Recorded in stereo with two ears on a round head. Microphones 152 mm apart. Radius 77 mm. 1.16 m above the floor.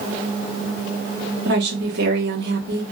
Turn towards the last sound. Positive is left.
turn(degrees=-70)  # may be behind; listen again after turning